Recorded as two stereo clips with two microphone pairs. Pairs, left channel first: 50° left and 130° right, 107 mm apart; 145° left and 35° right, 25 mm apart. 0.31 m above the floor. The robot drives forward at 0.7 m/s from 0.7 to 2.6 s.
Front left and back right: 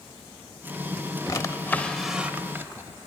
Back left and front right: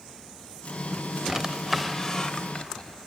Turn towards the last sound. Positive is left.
turn(degrees=165)